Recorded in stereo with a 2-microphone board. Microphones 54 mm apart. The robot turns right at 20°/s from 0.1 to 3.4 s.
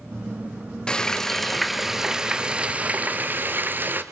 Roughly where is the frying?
Behind.